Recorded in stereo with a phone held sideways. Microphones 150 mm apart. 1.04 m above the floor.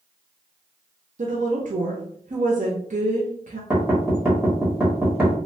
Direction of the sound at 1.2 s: 60° right (ahead or behind).